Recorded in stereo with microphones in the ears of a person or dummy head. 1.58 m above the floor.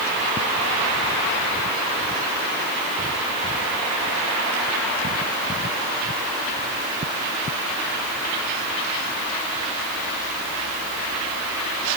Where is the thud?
No thud in this recording.